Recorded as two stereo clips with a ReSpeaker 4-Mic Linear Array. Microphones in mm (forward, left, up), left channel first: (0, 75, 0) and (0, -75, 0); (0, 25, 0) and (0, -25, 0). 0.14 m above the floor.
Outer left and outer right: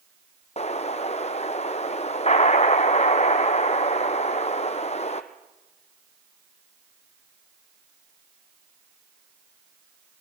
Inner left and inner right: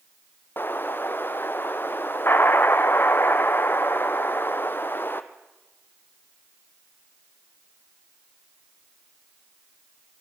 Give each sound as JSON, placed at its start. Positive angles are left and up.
{"t": 0.6, "sound": "an explosion", "side_deg": 45, "distance_m": 1.2}